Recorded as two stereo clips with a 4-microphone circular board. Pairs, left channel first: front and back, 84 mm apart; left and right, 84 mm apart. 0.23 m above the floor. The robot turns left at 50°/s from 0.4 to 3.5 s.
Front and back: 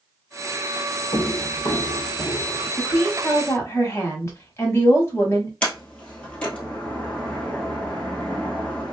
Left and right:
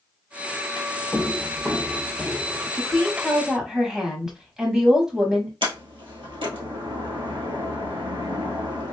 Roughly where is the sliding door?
Right.